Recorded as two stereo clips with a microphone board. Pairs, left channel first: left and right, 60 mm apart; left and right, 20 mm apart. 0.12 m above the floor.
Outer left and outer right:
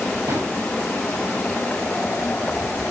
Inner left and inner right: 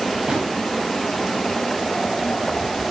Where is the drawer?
60° right (ahead or behind), 6 m.